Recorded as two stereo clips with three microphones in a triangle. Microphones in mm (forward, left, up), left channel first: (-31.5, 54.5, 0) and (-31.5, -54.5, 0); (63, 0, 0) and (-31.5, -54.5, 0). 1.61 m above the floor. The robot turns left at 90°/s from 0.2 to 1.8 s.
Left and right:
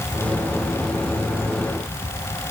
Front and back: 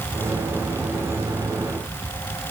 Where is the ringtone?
I don't hear a ringtone.